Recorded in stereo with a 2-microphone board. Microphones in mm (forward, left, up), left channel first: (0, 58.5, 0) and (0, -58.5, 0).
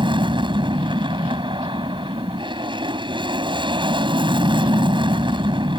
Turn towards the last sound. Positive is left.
turn(degrees=-40)  # may be behind; listen again after turning